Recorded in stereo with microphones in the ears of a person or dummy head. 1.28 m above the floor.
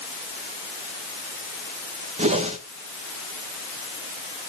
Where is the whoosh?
35° right (ahead or behind), 1.1 m.